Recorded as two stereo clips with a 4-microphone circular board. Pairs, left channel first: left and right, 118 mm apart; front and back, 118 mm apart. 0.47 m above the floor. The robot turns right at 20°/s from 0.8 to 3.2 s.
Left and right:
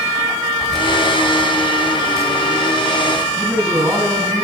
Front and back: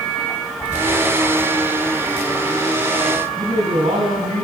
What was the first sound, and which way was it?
Keys jangling, 175° left.